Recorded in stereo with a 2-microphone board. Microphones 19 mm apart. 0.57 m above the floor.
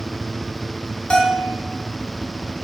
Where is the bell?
75° left (ahead or behind), 2.5 m.